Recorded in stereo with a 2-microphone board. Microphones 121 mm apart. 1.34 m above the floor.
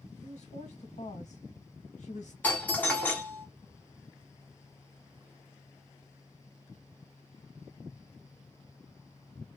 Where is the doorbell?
10° left (ahead or behind), 0.9 m.